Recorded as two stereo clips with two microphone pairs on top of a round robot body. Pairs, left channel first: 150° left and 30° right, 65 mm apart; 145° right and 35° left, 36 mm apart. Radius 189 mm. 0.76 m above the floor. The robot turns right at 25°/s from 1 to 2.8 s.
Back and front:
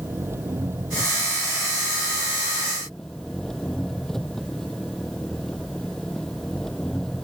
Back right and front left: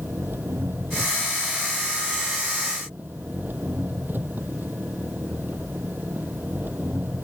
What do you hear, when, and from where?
0.0 s an engine running: 25° left; by 7.2 s 70° left